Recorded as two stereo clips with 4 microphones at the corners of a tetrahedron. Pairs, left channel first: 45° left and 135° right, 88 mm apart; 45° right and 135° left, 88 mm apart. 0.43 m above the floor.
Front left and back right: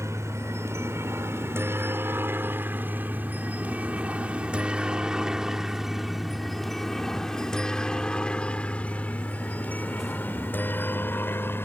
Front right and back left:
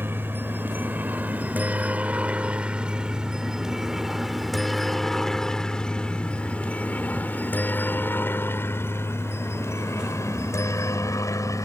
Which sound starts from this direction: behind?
A helicopter, at 0.0 s.